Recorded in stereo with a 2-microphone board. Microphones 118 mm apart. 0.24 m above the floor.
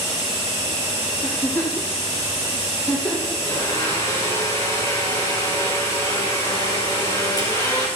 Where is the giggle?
25° left (ahead or behind), 5.5 m.